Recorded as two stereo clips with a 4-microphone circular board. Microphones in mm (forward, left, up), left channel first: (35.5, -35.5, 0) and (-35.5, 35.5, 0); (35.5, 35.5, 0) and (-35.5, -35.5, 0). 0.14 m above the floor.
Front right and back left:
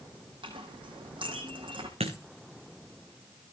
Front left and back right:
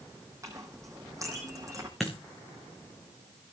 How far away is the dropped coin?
About 3 m.